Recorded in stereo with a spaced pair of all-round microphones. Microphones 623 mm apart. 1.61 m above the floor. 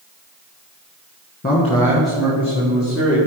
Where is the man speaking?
15° left (ahead or behind), 1.8 m; by 3.2 s 25° right (ahead or behind), 2 m.